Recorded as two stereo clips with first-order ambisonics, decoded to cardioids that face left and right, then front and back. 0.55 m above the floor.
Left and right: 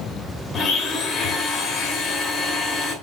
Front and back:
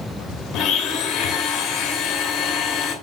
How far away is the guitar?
I don't hear a guitar.